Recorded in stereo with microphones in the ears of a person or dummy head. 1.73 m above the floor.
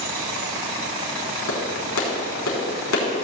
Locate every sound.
1.5 s a clap: 75° left (ahead or behind), 4 m